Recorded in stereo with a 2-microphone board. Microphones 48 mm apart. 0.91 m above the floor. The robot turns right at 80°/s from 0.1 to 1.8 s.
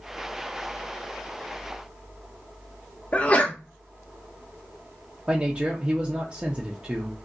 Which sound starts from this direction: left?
A sneeze, at 3.1 s.